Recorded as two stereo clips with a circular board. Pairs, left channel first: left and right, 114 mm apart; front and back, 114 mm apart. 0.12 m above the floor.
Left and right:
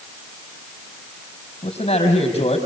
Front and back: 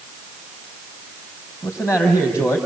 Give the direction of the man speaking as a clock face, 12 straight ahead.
10 o'clock.